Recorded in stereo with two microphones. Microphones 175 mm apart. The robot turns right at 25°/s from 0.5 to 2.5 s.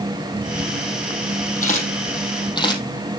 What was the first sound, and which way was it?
A camera shutter, 50° left (ahead or behind).